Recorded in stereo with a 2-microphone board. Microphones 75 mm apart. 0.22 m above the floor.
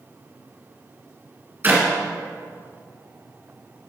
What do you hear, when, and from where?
1.6 s a clap: 30° right (ahead or behind), 1.7 m